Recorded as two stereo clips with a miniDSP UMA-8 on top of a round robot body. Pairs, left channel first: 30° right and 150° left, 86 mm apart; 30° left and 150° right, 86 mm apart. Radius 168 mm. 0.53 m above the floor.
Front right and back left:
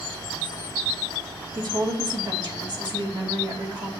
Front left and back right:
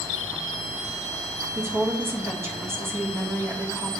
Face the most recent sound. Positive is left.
turn(degrees=155)